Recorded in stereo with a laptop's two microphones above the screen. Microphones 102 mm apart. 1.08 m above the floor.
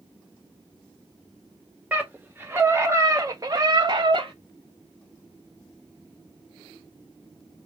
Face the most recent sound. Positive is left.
turn(degrees=-60)  # may be behind; listen again after turning